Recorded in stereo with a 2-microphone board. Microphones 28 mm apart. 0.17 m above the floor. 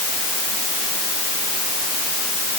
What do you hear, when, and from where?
Only background noise.